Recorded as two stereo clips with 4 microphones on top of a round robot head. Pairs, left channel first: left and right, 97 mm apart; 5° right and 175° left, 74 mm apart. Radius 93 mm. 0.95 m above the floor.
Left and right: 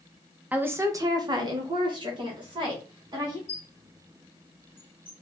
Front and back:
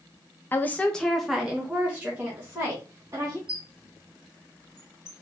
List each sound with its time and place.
0.5 s a woman speaking: 30° right, 0.7 m; by 3.4 s 125° right, 2 m
3.5 s a squeak: 105° left, 0.8 m